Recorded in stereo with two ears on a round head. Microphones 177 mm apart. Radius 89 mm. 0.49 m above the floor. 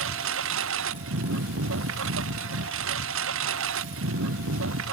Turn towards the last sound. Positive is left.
turn(degrees=-75)  # may be behind; listen again after turning